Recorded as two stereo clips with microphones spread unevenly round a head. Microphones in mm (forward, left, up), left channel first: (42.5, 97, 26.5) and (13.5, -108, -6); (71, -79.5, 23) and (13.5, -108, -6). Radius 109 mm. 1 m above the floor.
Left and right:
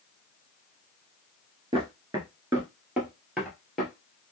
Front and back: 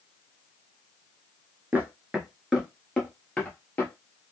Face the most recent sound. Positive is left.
turn(degrees=0)